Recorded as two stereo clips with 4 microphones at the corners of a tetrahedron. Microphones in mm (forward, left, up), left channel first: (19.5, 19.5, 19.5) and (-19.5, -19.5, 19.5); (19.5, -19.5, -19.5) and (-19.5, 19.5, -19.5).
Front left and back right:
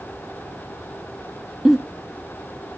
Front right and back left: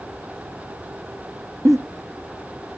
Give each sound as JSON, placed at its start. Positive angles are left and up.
{"t": 1.6, "sound": "a giggle", "azimuth_deg": 145, "distance_m": 1.3}